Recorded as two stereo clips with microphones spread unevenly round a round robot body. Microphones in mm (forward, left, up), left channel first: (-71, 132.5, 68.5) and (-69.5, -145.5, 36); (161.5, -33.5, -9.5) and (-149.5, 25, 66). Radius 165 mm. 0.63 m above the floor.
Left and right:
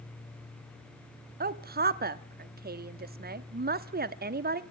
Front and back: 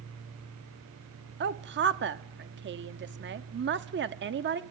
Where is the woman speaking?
130° right, 1.3 m.